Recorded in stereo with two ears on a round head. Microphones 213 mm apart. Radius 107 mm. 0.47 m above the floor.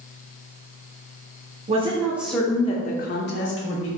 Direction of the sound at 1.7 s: 30° right (ahead or behind).